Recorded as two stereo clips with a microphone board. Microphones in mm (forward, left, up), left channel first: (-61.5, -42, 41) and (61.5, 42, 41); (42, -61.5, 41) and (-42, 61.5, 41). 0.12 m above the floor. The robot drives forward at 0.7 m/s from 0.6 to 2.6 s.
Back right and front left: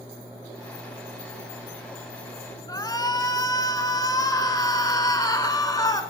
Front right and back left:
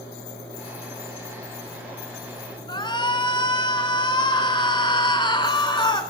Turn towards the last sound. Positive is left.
turn(degrees=-95)